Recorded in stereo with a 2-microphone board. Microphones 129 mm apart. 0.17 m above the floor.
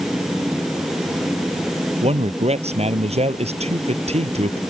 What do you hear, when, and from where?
2.0 s a man speaking: 55° right (ahead or behind)